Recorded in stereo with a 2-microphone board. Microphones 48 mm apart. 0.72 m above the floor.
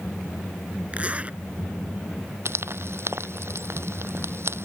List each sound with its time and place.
0.9 s a zipper: 30° right (ahead or behind)
2.5 s frying: 65° right (ahead or behind)